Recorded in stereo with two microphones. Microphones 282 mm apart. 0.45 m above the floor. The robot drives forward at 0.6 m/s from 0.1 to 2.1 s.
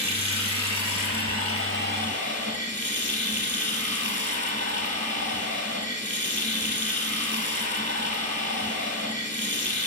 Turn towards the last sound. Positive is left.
turn(degrees=-40)  # may be behind; listen again after turning